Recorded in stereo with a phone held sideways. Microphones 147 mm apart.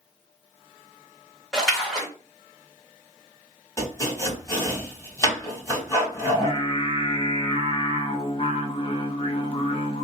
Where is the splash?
5° left (ahead or behind), 1.2 m.